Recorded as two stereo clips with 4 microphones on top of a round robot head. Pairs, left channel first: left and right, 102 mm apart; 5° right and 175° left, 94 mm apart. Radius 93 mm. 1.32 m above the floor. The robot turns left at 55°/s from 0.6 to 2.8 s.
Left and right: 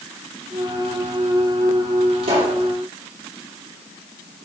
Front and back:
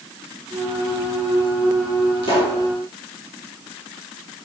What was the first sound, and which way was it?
A pop, 50° right.